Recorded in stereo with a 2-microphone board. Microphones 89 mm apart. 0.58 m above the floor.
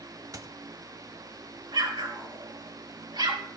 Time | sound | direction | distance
0.3 | a squeak | 40° right (ahead or behind) | 1.4 m
1.7 | an explosion | 55° right (ahead or behind) | 3.5 m